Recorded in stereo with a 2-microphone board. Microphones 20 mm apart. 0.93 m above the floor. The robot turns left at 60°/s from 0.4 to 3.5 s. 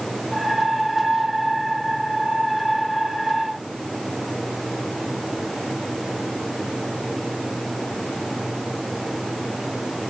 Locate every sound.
Only background noise.